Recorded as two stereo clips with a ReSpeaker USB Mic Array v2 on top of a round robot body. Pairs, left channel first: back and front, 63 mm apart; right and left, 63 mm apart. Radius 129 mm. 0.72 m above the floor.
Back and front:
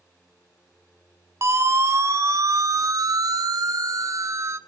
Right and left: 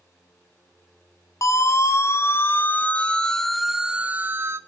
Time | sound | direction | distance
1.4 | a siren | 50° right | 2.5 m